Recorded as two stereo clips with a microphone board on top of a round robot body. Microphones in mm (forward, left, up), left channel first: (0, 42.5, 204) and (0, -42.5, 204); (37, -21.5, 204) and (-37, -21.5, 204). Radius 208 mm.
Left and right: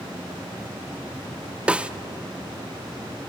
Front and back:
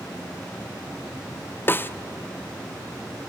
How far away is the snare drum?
About 0.9 m.